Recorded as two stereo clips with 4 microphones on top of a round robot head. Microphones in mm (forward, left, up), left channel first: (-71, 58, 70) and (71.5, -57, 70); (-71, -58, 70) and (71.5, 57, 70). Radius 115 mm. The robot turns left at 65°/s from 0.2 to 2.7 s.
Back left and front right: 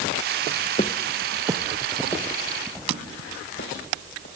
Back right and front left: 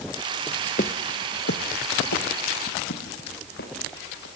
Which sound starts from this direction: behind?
Footsteps, at 0.8 s.